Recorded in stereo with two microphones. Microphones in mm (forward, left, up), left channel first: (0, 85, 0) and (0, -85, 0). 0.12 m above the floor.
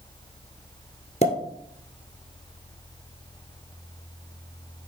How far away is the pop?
About 1.7 m.